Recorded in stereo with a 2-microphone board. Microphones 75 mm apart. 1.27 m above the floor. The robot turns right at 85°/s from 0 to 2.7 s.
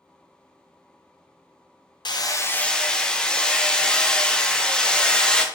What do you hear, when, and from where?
2.0 s hammering: 115° left, 0.5 m; by 5.5 s 170° left, 0.5 m